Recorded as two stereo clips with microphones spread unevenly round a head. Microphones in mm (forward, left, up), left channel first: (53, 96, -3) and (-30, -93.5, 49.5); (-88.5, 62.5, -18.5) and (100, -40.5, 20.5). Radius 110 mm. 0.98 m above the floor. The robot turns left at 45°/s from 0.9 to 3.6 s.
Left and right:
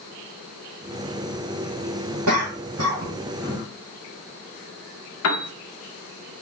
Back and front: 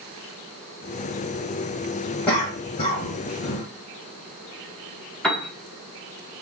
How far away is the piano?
About 0.8 m.